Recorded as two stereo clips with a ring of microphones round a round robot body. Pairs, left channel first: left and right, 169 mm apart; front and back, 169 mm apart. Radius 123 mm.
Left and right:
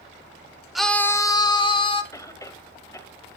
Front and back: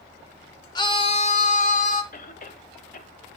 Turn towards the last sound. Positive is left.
turn(degrees=20)